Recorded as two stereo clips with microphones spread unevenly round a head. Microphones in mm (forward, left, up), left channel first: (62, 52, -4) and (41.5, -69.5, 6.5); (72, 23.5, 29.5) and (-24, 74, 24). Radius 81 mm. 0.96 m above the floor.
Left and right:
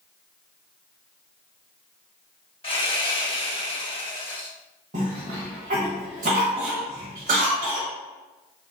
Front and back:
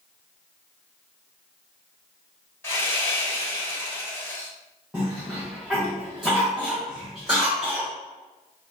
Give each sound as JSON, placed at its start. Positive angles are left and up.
{"t": 2.6, "sound": "sawing", "azimuth_deg": 35, "distance_m": 1.9}
{"t": 4.9, "sound": "a cough", "azimuth_deg": -120, "distance_m": 1.2}